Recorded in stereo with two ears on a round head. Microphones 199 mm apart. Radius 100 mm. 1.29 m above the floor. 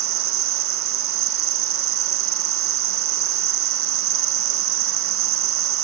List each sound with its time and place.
0.0 s an insect: 60° right (ahead or behind), 0.8 m